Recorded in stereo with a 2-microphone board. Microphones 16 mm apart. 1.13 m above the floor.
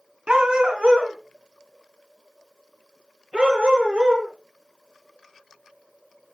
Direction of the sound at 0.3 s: 55° right (ahead or behind).